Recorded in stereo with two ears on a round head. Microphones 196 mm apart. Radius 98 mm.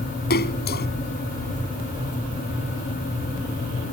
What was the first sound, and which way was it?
A splash, 45° left (ahead or behind).